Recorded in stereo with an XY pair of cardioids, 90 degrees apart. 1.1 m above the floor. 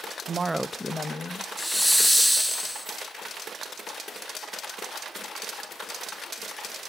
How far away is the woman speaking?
About 0.6 m.